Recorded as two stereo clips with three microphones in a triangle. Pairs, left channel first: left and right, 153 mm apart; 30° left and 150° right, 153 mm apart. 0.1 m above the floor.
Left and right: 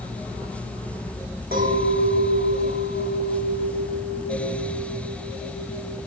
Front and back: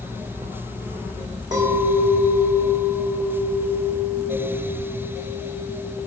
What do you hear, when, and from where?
1.5 s a clink: 90° right, 3.5 m